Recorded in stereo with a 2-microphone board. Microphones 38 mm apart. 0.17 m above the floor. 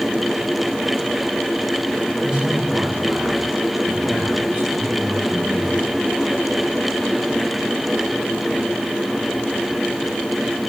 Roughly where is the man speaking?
Centre.